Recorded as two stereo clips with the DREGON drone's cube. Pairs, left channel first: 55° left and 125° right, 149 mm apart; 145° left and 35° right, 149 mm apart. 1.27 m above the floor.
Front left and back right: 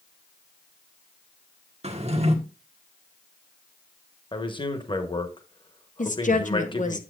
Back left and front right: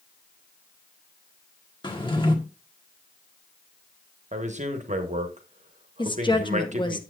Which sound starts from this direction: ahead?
A man speaking, at 4.3 s.